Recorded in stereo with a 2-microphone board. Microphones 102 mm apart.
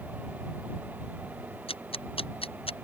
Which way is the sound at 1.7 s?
70° left (ahead or behind).